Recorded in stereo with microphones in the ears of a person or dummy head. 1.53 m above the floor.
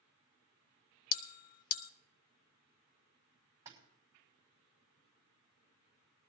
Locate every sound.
1.1 s a bell: 50° left (ahead or behind), 0.9 m
3.6 s a splash: 15° right (ahead or behind), 5 m